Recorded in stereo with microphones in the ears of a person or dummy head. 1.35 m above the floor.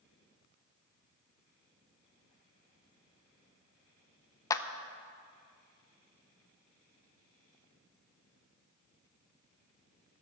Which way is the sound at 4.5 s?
15° left (ahead or behind).